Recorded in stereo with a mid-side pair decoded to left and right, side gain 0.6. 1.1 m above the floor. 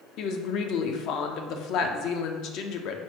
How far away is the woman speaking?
About 0.5 m.